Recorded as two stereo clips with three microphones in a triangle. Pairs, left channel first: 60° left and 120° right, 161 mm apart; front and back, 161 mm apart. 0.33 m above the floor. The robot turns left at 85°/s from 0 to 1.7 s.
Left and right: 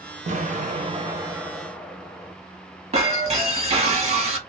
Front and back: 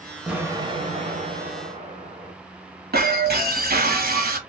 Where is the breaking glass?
165° right, 1.0 m.